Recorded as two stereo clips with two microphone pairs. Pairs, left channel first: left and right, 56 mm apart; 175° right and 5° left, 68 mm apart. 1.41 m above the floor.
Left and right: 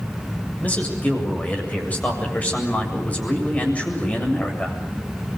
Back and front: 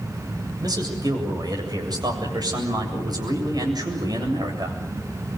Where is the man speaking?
25° left, 7.5 m.